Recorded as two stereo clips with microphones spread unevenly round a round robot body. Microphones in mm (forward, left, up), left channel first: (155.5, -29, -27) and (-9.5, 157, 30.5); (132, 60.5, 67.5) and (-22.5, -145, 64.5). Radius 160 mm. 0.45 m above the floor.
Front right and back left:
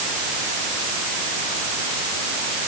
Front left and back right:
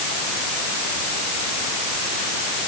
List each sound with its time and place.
Only background noise.